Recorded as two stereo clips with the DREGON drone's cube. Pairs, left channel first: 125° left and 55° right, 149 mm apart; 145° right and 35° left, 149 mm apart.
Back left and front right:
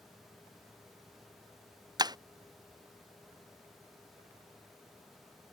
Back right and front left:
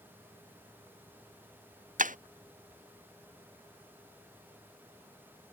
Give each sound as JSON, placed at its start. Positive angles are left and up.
{"t": 2.0, "sound": "breaking glass", "azimuth_deg": 5}